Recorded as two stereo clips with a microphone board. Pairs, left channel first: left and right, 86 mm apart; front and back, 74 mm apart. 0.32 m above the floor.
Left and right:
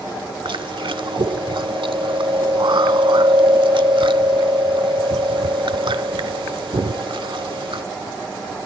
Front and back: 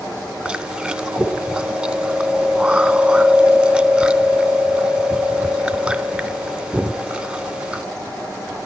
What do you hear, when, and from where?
0.5 s chewing: 105° right, 0.6 m